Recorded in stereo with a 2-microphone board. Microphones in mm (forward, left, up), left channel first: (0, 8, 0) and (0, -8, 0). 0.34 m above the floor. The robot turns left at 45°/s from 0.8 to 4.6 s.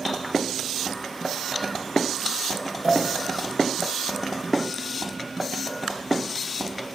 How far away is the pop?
About 5 m.